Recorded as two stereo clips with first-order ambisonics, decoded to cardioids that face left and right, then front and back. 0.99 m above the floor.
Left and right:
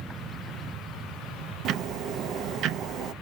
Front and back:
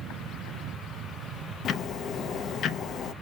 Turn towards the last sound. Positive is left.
turn(degrees=-50)